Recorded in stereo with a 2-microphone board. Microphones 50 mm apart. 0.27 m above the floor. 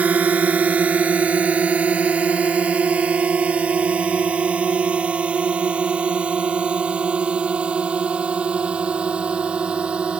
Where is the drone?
30° right (ahead or behind); by 10.2 s 20° right (ahead or behind).